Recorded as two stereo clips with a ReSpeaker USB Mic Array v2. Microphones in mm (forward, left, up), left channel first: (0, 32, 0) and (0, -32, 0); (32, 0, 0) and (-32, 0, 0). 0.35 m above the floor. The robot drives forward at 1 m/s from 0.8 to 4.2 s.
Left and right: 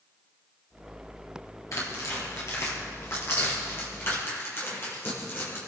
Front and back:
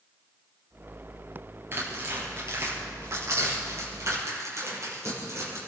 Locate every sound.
1.7 s tearing paper: 125° left, 5 m; by 5.6 s 140° left, 7 m